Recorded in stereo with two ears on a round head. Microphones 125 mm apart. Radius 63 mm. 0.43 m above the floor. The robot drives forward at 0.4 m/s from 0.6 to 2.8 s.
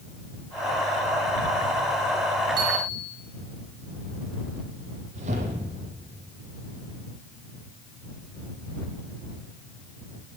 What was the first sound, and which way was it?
A bicycle bell, 35° right (ahead or behind).